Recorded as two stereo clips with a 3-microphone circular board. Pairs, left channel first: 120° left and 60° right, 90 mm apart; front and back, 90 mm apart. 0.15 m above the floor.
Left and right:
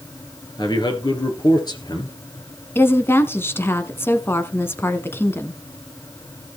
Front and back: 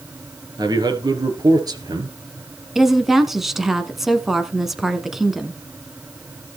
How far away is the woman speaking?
About 1.2 m.